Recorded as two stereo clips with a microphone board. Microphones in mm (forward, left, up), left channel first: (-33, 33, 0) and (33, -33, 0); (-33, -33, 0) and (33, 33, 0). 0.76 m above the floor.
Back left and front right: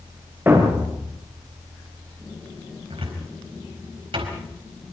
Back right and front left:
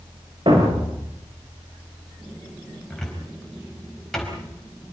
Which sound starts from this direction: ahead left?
A thud, at 0.5 s.